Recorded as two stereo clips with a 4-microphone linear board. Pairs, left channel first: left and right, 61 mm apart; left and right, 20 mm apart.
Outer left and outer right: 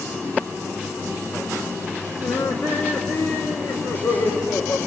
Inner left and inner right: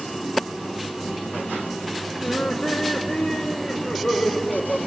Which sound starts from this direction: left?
Laughter, at 2.2 s.